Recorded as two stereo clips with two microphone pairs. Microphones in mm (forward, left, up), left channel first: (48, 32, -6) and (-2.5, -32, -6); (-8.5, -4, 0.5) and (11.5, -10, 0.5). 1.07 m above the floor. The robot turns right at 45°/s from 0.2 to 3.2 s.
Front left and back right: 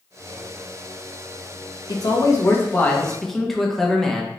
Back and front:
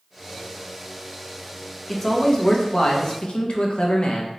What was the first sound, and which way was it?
A man speaking, 80° left.